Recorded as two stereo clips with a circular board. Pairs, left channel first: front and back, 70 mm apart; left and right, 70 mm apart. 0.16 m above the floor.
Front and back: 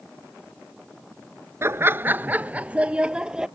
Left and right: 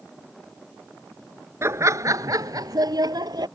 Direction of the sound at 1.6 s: 135° right.